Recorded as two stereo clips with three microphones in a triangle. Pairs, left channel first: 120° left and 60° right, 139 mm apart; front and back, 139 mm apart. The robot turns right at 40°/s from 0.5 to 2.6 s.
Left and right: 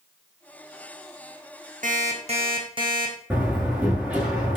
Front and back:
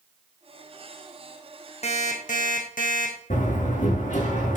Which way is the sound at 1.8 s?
40° right.